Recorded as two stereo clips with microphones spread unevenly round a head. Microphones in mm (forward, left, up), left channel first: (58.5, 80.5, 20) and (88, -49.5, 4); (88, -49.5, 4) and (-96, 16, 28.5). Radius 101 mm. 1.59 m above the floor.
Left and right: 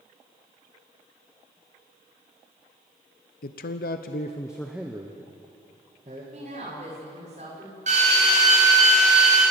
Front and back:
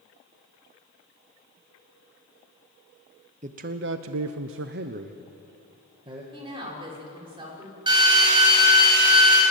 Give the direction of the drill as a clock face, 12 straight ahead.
4 o'clock.